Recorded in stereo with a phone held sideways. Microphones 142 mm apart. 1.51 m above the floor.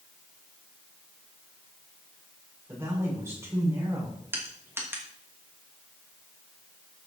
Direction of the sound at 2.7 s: 20° right (ahead or behind).